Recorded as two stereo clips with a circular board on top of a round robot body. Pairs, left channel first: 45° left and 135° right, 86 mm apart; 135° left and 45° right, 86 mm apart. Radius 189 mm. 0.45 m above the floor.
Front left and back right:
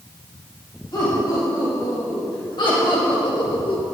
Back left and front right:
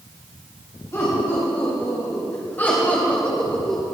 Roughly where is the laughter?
Left.